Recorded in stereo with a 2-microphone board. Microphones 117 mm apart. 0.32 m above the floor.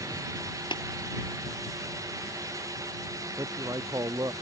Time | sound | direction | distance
0.7 | tapping | 40° left (ahead or behind) | ?
3.4 | a man speaking | 30° right (ahead or behind) | ?